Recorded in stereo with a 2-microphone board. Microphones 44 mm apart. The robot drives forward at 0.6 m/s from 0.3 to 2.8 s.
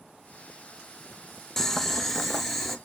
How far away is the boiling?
About 0.5 m.